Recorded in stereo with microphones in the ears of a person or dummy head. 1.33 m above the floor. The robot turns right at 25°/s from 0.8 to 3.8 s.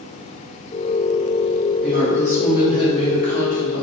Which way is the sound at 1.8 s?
10° left.